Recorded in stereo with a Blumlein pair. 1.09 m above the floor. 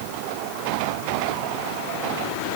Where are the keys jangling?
No keys jangling in this recording.